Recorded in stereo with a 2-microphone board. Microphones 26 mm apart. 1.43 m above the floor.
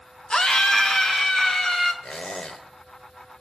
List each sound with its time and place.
0.3 s a scream: 40° left (ahead or behind), 1.1 m; by 1.9 s 25° left (ahead or behind), 3 m
2.0 s a squeak: 40° left (ahead or behind), 1.4 m